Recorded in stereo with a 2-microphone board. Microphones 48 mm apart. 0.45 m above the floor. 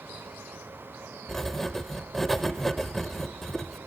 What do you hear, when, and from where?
1.3 s writing: 5° left (ahead or behind), 0.6 m